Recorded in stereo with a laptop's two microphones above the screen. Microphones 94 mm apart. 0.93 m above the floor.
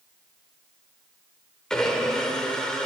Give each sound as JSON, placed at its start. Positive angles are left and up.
{"t": 1.7, "sound": "a blender", "side_deg": 10, "distance_m": 1.2}